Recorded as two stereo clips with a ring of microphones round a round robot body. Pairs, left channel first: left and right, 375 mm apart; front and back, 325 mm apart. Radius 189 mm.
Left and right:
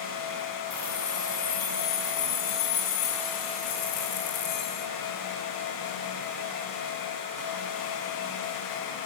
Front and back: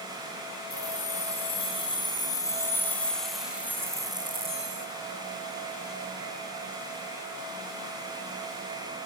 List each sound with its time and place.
0.7 s keys jangling: 70° left, 5 m; by 4.9 s 115° left, 2.5 m